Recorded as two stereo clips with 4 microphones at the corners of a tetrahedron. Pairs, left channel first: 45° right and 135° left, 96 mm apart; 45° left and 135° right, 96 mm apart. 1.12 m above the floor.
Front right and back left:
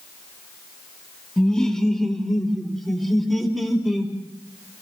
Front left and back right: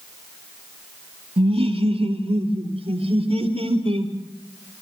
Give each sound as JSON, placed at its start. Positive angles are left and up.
{"t": 1.4, "sound": "laughter", "azimuth_deg": -130, "distance_m": 2.5}